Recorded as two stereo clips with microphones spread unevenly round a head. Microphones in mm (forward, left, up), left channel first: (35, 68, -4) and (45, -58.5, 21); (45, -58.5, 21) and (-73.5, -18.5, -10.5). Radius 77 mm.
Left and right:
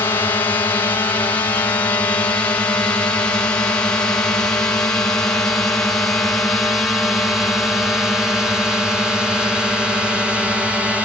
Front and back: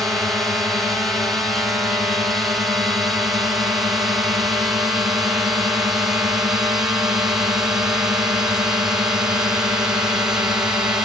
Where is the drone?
100° left; by 11.1 s straight behind.